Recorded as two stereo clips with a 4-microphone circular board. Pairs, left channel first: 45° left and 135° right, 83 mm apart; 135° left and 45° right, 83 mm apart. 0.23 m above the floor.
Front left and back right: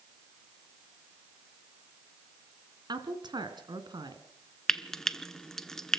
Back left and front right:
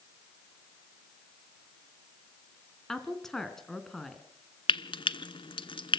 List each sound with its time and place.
2.9 s a woman speaking: 140° right, 2.5 m
4.7 s frying: 130° left, 0.7 m